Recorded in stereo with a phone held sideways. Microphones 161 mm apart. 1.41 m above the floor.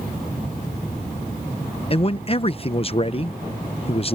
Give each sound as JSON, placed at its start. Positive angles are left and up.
{"t": 1.9, "sound": "a man speaking", "side_deg": 35}